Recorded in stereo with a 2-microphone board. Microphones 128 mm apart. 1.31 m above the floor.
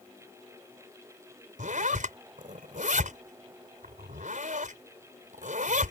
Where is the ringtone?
No ringtone in this recording.